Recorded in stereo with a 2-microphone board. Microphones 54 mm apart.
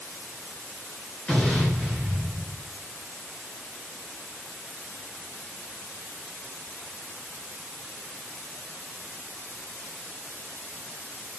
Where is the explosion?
25° left (ahead or behind), 3.5 m.